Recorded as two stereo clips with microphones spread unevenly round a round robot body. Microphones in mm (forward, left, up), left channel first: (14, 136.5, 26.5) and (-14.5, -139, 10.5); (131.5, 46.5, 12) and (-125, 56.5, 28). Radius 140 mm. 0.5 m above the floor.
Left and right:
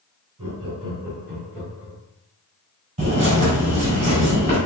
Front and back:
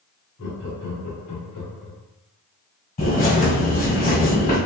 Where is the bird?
45° right, 1.7 m.